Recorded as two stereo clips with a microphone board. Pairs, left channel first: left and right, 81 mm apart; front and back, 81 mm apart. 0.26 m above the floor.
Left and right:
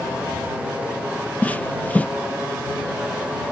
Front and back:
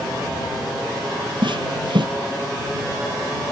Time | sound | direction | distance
1.4 | footsteps | 160° left | ?